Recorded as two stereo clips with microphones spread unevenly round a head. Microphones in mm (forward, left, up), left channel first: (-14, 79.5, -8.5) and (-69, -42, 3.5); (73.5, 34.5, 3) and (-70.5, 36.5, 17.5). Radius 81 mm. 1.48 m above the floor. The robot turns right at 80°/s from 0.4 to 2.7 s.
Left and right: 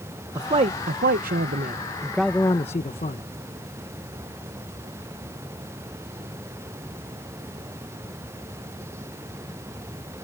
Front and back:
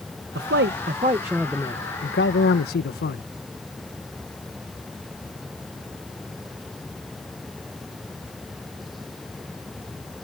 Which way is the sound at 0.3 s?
175° right.